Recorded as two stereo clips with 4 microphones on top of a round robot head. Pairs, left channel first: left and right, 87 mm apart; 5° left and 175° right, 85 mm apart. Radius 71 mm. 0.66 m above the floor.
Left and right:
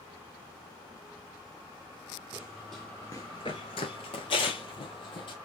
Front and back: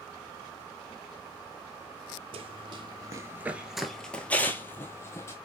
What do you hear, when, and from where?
2.3 s running footsteps: 170° right, 1.1 m; by 5.3 s 65° left, 1.7 m